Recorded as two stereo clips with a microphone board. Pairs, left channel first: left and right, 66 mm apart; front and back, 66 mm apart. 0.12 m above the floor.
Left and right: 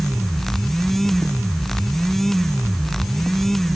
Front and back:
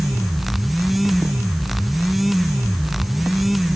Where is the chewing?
No chewing in this recording.